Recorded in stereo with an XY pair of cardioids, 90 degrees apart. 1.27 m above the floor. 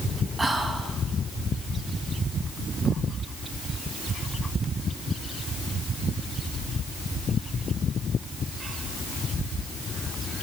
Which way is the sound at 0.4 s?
30° right.